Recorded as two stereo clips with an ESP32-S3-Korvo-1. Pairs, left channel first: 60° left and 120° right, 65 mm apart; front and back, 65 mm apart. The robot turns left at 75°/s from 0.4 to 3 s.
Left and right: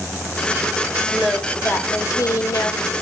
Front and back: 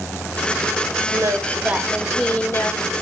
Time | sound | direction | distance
1.1 | singing | 155° left | 1.7 m